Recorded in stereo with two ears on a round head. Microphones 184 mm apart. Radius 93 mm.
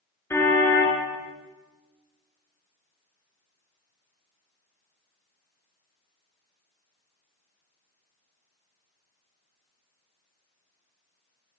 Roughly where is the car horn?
Centre.